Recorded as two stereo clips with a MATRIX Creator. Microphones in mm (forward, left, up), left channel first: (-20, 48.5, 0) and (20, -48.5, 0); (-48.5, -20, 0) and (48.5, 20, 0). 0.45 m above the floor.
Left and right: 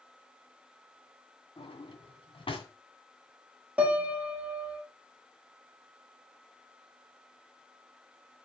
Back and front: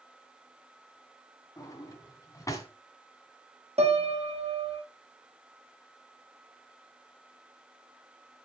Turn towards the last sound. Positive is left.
turn(degrees=10)